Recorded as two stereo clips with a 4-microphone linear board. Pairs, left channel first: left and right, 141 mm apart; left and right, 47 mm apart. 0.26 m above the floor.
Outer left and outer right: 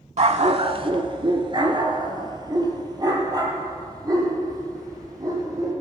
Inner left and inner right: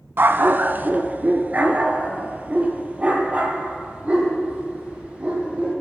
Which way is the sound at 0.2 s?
55° right (ahead or behind).